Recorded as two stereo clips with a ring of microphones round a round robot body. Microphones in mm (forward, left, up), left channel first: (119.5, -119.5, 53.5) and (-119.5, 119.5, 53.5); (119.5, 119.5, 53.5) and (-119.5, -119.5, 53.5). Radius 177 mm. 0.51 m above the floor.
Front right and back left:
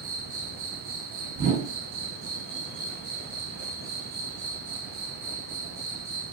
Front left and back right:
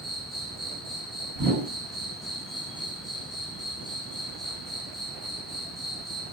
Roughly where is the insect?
Behind left.